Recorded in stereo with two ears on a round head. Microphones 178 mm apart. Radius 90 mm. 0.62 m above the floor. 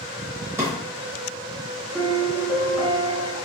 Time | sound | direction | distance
0.6 | a drawer | 10° right (ahead or behind) | 0.6 m
1.9 | a piano | 5° right (ahead or behind) | 1.8 m